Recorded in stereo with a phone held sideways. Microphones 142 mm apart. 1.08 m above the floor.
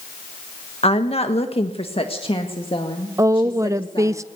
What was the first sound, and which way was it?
A woman speaking, 45° left (ahead or behind).